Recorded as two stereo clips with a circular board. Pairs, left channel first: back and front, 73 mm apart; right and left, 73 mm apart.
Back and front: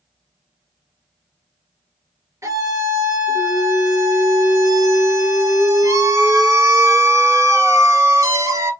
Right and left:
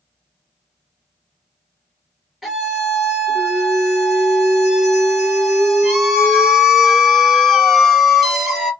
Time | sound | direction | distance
2.4 | a scream | straight ahead | 1.6 m